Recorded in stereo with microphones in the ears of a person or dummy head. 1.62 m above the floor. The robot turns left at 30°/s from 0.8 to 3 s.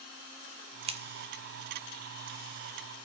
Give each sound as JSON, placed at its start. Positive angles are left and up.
{"t": 0.9, "sound": "scissors", "side_deg": -35, "distance_m": 0.7}